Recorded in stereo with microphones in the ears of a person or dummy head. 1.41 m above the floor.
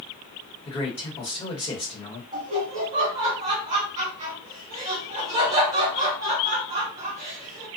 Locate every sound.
0.7 s a man speaking: 30° left (ahead or behind), 1.0 m
2.3 s laughter: 40° right (ahead or behind), 1.4 m